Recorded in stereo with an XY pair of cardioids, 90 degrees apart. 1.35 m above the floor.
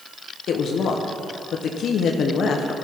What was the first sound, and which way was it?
A woman speaking, 70° left.